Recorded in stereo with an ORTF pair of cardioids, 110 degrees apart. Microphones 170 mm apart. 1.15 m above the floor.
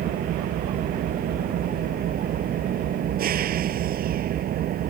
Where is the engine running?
60° right.